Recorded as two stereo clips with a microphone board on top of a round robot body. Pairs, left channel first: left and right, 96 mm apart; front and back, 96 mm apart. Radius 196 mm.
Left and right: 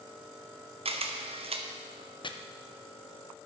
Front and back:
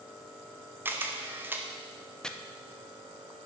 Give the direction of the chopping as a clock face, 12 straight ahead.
9 o'clock.